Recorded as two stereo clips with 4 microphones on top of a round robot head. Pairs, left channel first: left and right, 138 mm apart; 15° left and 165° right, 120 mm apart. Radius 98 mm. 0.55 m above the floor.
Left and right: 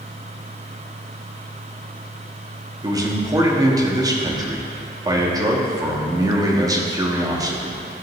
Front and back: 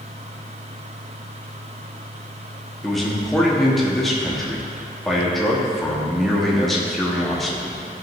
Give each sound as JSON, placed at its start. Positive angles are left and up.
{"t": 2.8, "sound": "a man speaking", "azimuth_deg": -70, "distance_m": 0.9}